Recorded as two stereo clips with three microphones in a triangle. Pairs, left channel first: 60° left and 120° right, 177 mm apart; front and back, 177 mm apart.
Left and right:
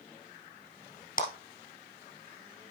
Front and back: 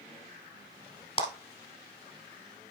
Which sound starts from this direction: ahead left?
A clap, at 1.2 s.